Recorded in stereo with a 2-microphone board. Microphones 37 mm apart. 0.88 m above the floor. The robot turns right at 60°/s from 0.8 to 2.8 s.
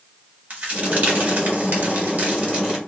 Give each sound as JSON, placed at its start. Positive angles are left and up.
{"t": 0.5, "sound": "a crack", "side_deg": -35, "distance_m": 1.5}